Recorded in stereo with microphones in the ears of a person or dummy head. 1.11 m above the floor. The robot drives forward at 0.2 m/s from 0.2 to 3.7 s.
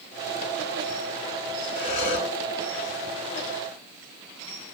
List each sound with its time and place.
1.8 s breathing: 40° left (ahead or behind), 2 m